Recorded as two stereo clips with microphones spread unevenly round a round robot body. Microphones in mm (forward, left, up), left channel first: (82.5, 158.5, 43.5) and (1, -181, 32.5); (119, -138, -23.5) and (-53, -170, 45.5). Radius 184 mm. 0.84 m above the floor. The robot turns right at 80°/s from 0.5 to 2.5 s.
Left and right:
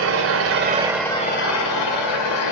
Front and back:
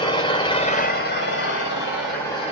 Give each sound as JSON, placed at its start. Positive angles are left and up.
{"t": 0.0, "sound": "an engine running", "azimuth_deg": -55, "distance_m": 2.5}